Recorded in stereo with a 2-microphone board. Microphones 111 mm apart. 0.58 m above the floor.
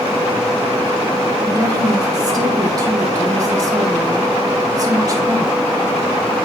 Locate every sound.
1.5 s a woman speaking: 35° right (ahead or behind), 3 m